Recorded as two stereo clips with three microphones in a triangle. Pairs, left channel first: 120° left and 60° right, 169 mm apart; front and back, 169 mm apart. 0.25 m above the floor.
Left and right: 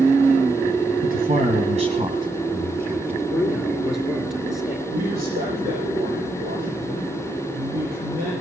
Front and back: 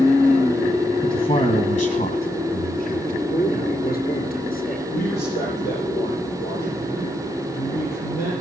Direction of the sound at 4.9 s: 30° right.